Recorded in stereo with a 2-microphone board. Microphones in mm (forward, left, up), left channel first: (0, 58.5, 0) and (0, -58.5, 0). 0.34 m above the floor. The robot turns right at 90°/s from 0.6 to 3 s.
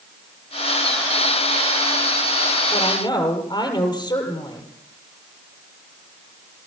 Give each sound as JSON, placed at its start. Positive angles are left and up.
{"t": 2.7, "sound": "a woman speaking", "side_deg": 65, "distance_m": 7.5}